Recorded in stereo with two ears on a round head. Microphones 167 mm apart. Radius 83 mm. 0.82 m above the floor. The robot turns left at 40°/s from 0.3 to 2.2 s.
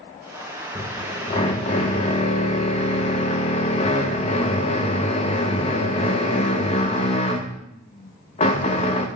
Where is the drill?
145° left, 0.8 m; by 9.1 s 85° left, 0.8 m.